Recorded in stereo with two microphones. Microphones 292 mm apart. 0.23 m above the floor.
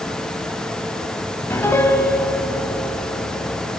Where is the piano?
10° left (ahead or behind), 1.0 m.